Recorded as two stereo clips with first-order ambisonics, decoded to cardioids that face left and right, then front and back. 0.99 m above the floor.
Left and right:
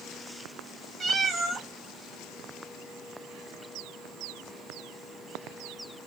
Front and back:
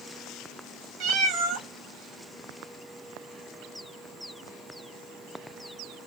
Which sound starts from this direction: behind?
A cat meowing, at 1.0 s.